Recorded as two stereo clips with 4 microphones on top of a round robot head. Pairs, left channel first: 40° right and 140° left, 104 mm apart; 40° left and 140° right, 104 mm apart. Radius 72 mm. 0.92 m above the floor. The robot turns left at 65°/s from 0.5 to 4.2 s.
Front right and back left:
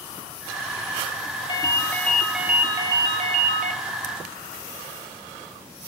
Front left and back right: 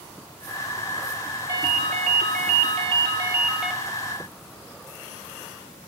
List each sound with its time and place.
1.5 s a ringtone: 80° right, 0.6 m; by 3.8 s 130° left, 0.6 m